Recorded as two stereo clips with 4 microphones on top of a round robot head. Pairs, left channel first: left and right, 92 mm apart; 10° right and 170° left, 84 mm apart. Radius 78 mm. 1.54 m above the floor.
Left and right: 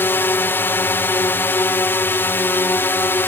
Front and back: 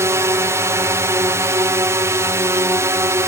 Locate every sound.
0.0 s a drone: 140° left